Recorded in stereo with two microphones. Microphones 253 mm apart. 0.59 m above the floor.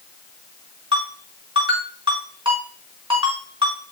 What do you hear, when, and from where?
0.9 s a ringtone: 20° right (ahead or behind), 4.5 m